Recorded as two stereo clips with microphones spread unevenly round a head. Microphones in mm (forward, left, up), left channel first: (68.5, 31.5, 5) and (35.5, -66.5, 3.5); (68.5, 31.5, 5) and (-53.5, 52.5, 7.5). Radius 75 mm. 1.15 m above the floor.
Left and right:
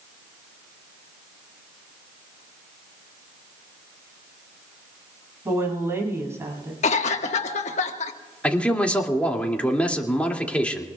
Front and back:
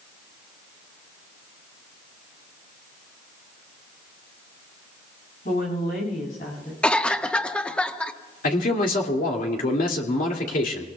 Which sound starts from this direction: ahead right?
A woman speaking, at 5.5 s.